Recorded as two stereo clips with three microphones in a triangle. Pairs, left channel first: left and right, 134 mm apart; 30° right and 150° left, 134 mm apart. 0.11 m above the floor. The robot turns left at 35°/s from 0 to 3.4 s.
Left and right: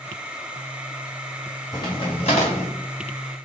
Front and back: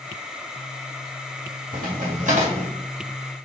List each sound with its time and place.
1.7 s a crack: 150° left, 1.7 m; by 2.7 s 115° left, 1.7 m